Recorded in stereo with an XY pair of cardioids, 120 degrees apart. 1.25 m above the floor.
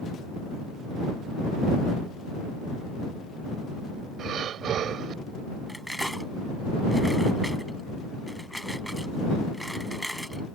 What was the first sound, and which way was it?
Breathing, 60° right.